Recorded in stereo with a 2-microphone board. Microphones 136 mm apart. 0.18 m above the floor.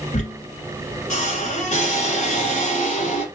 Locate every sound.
0.1 s a squeak: 60° left (ahead or behind), 1.7 m